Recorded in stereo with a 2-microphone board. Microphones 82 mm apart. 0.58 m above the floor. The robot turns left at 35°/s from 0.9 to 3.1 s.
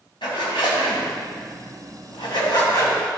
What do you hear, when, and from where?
0.2 s a zipper: 65° left (ahead or behind), 2.5 m; by 3.0 s 40° left (ahead or behind), 2.5 m